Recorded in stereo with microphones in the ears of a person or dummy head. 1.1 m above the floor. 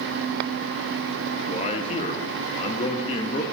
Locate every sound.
1.5 s a man speaking: 30° left (ahead or behind), 0.6 m